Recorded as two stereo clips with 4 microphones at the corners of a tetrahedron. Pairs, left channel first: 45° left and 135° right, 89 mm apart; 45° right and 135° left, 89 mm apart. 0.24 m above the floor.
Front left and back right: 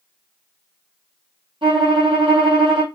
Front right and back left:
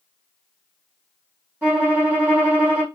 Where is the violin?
155° right, 3 m.